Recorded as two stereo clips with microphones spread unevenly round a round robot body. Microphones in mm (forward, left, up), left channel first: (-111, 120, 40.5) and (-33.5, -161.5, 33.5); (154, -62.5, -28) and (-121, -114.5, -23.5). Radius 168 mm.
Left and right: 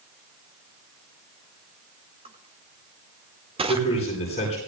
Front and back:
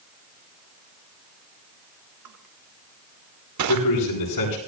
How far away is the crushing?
About 1.5 m.